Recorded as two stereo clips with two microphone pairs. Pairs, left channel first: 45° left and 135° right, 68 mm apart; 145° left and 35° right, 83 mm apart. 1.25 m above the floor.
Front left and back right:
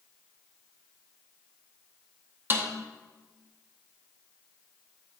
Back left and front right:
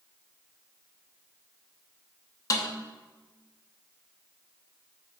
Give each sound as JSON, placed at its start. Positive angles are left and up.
{"t": 2.5, "sound": "a snare drum", "azimuth_deg": 180, "distance_m": 0.8}